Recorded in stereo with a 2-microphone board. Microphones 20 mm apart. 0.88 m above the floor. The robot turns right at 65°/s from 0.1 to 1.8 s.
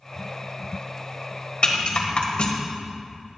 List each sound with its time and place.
1.6 s a rattle: 50° left (ahead or behind), 1.4 m; by 2.5 s 60° left (ahead or behind), 1.4 m